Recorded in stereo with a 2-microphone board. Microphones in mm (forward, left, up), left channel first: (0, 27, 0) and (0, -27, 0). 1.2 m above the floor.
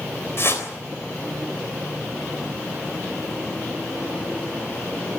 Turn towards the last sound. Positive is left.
turn(degrees=50)  # may be behind; listen again after turning